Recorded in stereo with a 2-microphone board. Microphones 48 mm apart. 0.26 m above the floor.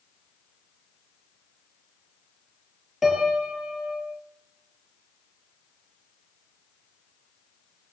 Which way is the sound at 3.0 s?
5° right (ahead or behind).